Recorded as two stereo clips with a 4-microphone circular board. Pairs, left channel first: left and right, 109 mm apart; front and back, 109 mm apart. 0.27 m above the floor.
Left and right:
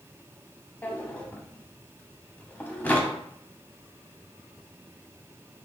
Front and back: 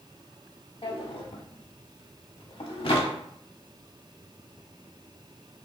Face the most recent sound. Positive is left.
turn(degrees=20)